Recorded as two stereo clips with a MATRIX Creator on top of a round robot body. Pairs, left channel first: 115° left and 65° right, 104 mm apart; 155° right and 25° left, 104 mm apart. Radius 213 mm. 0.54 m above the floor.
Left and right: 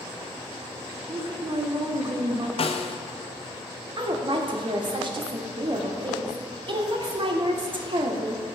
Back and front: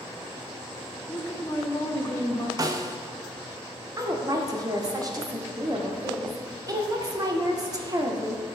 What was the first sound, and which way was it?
A woman speaking, 100° right.